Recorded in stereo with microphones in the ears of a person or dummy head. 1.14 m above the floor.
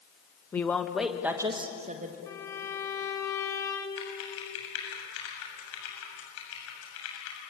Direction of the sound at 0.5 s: 10° left (ahead or behind).